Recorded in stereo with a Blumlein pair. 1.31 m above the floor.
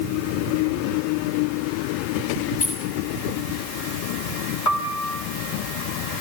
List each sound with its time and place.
2.6 s keys jangling: 45° left, 6 m
4.7 s a piano: 45° left, 3 m